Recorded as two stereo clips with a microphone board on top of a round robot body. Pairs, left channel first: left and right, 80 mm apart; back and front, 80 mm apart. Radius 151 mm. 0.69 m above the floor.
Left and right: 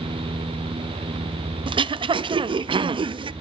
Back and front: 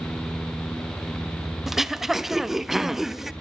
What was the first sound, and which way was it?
Throat clearing, 85° right.